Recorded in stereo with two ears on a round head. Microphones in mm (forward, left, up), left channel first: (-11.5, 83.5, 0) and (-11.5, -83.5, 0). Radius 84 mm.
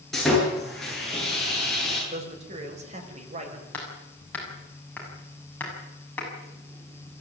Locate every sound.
0.1 s sawing: centre (ahead or behind), 9 m
2.1 s a man speaking: 40° right (ahead or behind), 5.5 m
3.7 s hammering: 10° left (ahead or behind), 6.5 m